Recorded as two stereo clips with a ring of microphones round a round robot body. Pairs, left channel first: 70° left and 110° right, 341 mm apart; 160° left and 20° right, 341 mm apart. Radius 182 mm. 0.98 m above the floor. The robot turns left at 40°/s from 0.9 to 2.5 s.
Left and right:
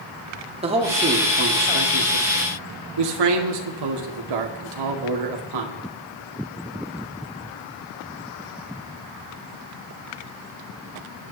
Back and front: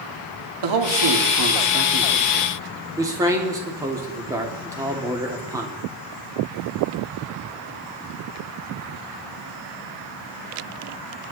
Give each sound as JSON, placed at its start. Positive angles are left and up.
{"t": 0.6, "sound": "a man speaking", "azimuth_deg": -40, "distance_m": 2.5}